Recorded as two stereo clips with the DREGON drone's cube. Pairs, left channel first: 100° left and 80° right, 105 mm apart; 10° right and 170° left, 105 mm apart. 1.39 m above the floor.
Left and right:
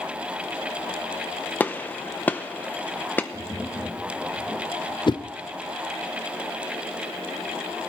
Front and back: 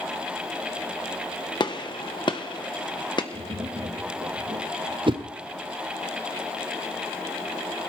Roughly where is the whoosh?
Behind left.